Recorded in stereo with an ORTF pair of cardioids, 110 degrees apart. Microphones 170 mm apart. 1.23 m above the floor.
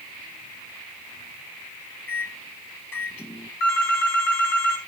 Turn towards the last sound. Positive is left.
turn(degrees=70)